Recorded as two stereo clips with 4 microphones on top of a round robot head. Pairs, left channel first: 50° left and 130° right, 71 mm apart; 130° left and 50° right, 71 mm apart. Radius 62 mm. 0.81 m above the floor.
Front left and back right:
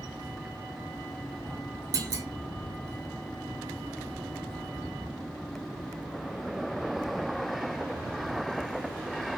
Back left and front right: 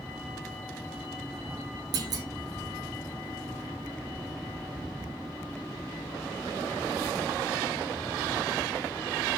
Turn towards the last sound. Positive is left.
turn(degrees=-85)